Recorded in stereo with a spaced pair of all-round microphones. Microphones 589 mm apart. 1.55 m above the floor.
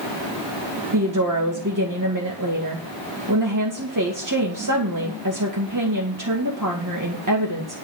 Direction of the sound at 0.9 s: 35° right (ahead or behind).